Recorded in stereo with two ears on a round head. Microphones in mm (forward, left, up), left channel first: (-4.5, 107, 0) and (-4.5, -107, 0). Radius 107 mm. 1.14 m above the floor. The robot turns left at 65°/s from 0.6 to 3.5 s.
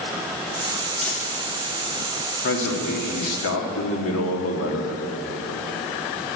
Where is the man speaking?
130° left, 1.8 m; by 5.0 s 60° left, 1.8 m.